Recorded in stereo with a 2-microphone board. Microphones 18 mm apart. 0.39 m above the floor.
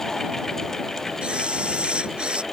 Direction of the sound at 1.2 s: 75° right (ahead or behind).